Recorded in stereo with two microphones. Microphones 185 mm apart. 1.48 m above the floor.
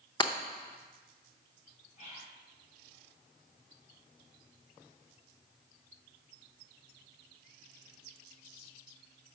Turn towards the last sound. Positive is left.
turn(degrees=40)  # may be behind; listen again after turning